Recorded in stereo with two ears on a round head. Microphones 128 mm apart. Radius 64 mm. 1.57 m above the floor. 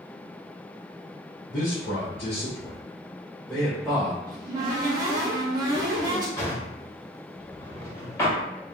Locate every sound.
1.5 s a man speaking: 65° left (ahead or behind), 1.4 m; by 4.2 s 10° right (ahead or behind), 1.4 m
4.3 s a cupboard door: 25° right (ahead or behind), 0.8 m
6.4 s a drawer: 20° left (ahead or behind), 1.3 m